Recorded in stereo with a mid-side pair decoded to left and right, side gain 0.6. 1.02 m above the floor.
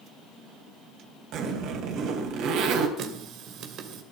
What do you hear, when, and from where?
1.3 s a zipper: 60° right, 3.5 m
3.0 s a running tap: 60° right, 2.5 m